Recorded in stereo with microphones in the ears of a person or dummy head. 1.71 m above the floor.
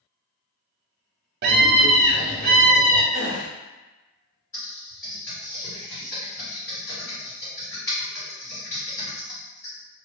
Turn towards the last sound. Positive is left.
turn(degrees=10)  # may be behind; listen again after turning